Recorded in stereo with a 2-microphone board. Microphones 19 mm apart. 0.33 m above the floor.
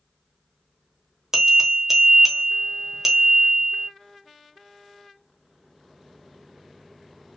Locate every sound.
1.3 s a bell: 25° right (ahead or behind), 1.0 m